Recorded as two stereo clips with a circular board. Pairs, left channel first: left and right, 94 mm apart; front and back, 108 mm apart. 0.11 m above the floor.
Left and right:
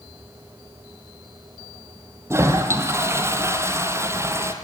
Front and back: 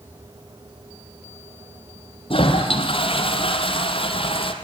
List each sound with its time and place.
2.3 s a toilet flushing: 30° right, 3 m